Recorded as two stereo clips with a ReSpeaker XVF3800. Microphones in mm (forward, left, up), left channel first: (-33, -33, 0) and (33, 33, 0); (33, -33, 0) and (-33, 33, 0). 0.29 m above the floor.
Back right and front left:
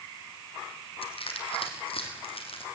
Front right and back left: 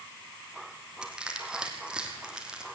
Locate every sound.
1.0 s crushing: 145° right, 3 m